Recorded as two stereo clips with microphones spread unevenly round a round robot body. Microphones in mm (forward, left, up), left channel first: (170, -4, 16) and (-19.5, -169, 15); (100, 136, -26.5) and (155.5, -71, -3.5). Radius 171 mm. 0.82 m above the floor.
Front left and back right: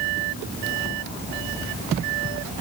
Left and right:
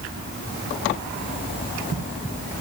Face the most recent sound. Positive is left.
No sound to turn to.